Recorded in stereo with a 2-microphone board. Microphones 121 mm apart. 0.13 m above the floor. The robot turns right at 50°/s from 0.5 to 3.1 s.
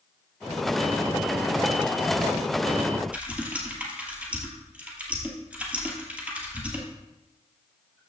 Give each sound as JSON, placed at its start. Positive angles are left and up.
{"t": 3.1, "sound": "typing on a keyboard", "side_deg": -10, "distance_m": 2.0}